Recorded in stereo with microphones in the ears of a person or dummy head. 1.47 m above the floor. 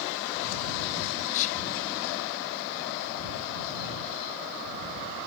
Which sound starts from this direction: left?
Whispering, at 1.3 s.